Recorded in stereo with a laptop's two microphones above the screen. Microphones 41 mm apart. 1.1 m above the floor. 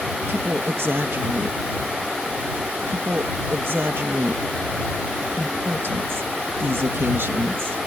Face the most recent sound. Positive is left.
turn(degrees=-65)  # may be behind; listen again after turning